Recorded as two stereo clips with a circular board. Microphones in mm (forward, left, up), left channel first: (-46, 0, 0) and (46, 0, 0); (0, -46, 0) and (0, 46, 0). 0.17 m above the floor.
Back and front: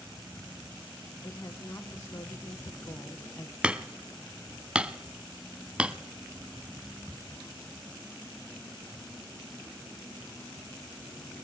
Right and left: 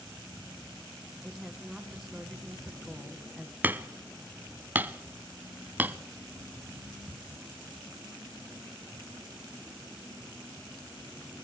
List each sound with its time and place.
1.2 s a woman speaking: 175° left, 1.4 m
3.6 s hammering: 60° left, 0.7 m